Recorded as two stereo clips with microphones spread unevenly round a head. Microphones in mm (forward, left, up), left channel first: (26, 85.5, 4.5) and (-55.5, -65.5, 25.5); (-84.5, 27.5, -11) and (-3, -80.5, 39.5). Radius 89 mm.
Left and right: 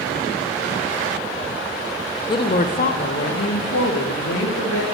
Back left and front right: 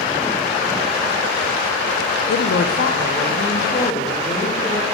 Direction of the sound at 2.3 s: 130° left.